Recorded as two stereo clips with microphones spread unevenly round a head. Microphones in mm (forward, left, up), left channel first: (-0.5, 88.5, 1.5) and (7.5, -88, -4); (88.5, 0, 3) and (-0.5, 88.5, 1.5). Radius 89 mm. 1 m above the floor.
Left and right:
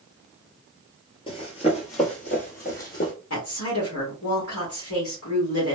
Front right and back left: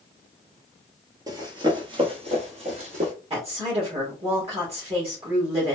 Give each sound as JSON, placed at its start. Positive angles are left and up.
{"t": 1.3, "sound": "running footsteps", "azimuth_deg": 110, "distance_m": 1.1}
{"t": 3.3, "sound": "a woman speaking", "azimuth_deg": 95, "distance_m": 1.6}